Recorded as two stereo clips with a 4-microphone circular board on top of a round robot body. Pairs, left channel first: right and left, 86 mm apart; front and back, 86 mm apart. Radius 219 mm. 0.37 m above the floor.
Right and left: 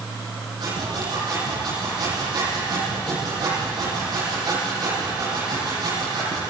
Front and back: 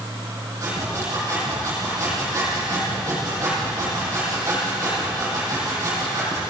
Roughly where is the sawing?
Behind left.